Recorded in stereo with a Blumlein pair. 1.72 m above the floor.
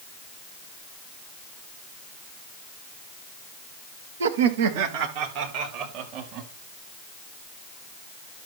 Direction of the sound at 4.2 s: 65° right.